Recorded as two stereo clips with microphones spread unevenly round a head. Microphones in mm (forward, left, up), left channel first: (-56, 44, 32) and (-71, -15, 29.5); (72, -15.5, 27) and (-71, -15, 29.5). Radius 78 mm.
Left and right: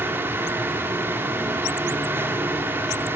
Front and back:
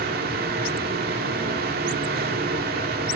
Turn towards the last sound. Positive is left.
turn(degrees=-160)